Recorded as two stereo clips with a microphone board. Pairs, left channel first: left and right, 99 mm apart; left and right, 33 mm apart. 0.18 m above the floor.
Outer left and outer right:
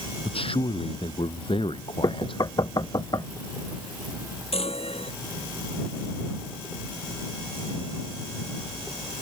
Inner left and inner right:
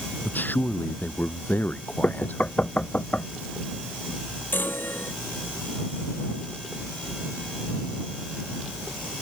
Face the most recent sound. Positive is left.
turn(degrees=80)